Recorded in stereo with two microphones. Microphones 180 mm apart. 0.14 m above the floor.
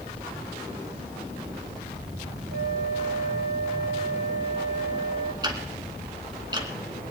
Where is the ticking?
25° right (ahead or behind), 1.7 m.